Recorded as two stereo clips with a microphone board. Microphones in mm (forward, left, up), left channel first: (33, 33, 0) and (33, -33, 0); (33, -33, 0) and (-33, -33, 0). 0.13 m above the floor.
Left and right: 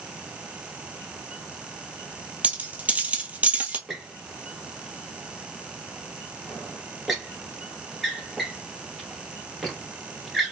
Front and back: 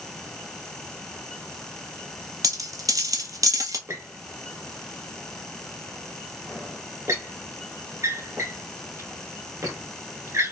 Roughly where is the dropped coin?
Behind right.